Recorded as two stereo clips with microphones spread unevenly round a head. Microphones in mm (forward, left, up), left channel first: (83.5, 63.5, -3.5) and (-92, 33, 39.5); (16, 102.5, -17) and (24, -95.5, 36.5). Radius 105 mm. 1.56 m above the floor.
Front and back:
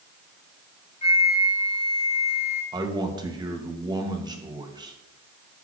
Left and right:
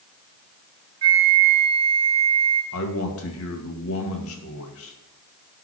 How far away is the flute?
About 1.5 m.